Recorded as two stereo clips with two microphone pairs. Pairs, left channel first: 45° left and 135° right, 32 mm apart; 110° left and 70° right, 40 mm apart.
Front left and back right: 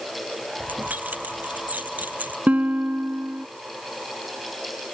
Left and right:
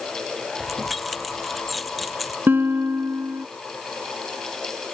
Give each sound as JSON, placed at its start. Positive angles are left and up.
{"t": 0.6, "sound": "keys jangling", "azimuth_deg": -165}
{"t": 2.5, "sound": "a guitar", "azimuth_deg": -95}